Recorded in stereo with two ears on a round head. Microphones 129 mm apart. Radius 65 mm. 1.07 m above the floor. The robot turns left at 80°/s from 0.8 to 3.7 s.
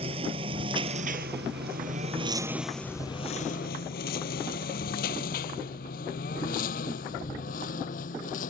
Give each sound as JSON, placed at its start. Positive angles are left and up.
{"t": 0.0, "sound": "a lawn mower", "side_deg": -40}